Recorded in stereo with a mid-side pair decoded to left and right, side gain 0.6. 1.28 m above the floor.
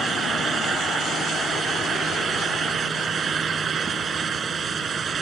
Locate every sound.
0.0 s a fan: 35° right